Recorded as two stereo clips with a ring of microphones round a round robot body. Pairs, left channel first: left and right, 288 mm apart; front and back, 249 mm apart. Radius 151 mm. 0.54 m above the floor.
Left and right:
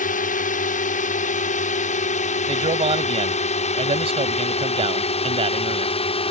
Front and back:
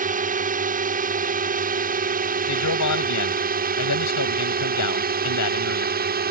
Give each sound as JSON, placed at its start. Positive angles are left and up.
{"t": 0.0, "sound": "a drone", "azimuth_deg": 140}
{"t": 2.5, "sound": "a man speaking", "azimuth_deg": -20}